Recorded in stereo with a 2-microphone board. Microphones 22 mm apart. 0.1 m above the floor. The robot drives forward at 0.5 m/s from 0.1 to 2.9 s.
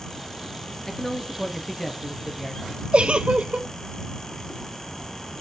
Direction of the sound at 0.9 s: 15° left (ahead or behind).